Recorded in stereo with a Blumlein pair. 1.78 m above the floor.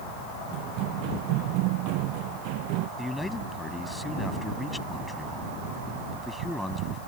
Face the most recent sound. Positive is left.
turn(degrees=5)